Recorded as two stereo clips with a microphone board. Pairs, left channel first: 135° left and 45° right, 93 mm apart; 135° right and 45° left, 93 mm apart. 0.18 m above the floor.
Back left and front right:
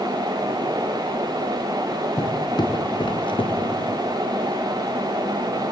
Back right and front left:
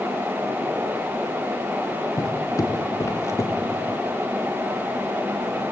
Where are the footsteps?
175° left, 4 m; by 3.9 s 160° left, 4 m.